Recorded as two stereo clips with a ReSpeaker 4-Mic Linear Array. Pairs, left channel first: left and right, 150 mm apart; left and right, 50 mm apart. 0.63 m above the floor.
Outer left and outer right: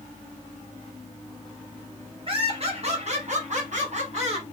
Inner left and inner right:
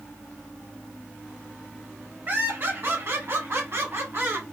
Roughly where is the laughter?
Right.